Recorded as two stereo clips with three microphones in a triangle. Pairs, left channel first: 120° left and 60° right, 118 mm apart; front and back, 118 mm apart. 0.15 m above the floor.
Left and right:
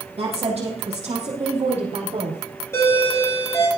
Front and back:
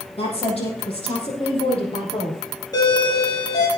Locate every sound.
0.2 s a woman speaking: 30° right, 6 m; by 2.4 s 45° right, 4.5 m
2.7 s a doorbell: 55° left, 6 m